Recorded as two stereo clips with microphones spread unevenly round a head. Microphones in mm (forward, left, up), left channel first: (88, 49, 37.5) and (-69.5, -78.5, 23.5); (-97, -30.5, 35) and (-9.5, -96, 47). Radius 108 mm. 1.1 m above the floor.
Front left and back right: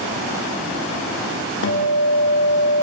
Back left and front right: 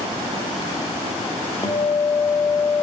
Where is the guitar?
75° left, 2.5 m.